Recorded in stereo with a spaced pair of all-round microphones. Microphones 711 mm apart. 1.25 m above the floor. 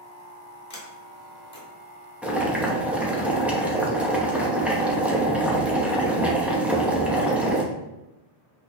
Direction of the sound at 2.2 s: Centre (ahead or behind).